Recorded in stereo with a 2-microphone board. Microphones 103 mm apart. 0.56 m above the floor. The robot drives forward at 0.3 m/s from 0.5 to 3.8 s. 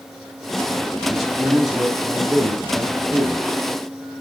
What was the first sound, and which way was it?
A man speaking, centre (ahead or behind).